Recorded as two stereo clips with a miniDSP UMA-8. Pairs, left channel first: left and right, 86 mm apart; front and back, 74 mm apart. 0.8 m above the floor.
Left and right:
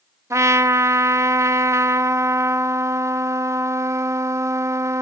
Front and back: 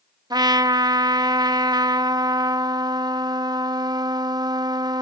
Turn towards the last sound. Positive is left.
turn(degrees=-150)